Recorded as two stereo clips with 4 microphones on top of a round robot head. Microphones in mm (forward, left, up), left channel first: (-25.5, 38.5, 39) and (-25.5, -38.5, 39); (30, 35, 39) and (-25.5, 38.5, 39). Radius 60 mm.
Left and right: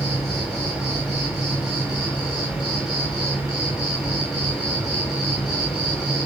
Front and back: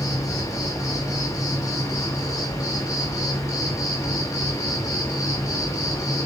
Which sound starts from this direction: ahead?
An insect, at 0.0 s.